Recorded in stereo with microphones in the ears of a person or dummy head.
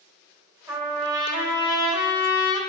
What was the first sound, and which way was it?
A trumpet, 15° right (ahead or behind).